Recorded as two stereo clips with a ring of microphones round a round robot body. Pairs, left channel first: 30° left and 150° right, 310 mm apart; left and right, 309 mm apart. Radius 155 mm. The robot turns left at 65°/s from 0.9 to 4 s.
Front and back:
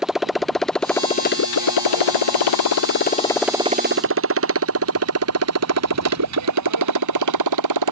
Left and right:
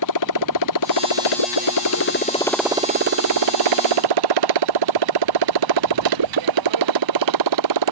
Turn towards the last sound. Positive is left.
turn(degrees=-120)